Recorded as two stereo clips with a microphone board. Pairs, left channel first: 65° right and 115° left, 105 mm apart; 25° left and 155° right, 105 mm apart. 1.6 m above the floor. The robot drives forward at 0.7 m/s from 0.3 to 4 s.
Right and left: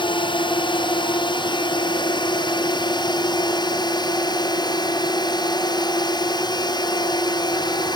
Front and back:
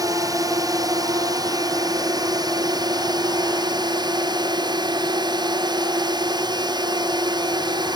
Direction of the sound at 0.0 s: 105° right.